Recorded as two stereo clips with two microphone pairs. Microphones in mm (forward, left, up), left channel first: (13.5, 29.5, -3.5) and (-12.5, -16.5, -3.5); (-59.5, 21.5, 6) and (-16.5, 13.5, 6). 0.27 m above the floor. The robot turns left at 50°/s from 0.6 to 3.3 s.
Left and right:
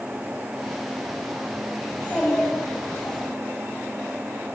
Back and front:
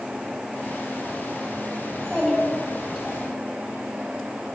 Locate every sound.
1.9 s a child speaking: 110° left, 1.2 m; by 3.2 s 45° left, 1.2 m